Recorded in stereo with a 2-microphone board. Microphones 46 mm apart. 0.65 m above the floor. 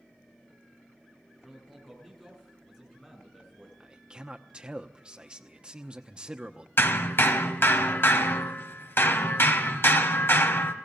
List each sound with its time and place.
1.4 s a man speaking: 5° left (ahead or behind), 8 m
3.8 s a man speaking: 20° right (ahead or behind), 0.9 m
6.8 s hammering: 55° left (ahead or behind), 1.5 m